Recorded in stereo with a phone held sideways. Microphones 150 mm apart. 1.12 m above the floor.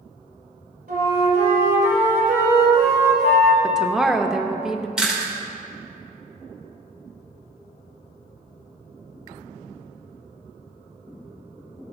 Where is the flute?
70° right (ahead or behind), 3 m.